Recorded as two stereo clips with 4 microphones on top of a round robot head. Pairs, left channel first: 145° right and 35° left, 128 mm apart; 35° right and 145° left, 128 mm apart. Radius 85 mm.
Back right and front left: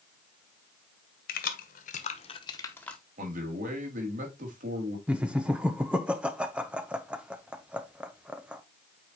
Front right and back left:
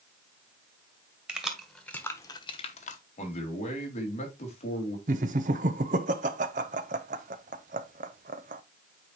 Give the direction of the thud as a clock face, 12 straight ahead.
I don't hear a thud.